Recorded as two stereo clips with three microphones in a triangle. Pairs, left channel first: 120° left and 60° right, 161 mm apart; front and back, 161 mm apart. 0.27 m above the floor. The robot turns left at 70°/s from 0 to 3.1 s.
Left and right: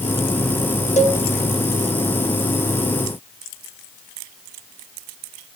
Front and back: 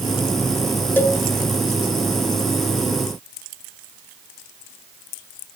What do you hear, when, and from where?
1.0 s a cowbell: 80° left, 0.9 m; by 1.2 s 60° left, 0.9 m